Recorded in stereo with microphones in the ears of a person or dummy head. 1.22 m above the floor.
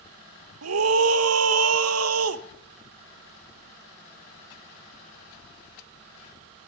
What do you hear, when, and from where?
0.6 s a scream: 85° right, 1.2 m